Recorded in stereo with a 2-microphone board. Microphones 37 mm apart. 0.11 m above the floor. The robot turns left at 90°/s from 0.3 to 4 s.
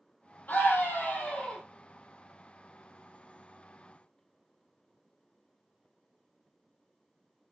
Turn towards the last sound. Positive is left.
turn(degrees=160)